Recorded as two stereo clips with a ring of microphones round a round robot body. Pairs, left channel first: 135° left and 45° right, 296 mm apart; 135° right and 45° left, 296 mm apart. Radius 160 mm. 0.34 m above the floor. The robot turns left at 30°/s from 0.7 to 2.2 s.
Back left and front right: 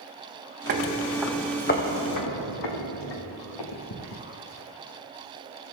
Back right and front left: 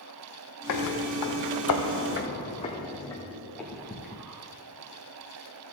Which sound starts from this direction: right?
Footsteps, at 0.7 s.